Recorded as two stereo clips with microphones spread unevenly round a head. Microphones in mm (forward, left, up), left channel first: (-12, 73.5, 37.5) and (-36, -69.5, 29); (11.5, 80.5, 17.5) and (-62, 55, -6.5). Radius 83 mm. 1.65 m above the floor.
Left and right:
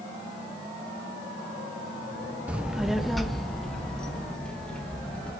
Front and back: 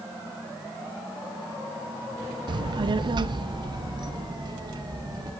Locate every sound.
2.5 s a child speaking: straight behind, 0.6 m; by 5.3 s 165° left, 2 m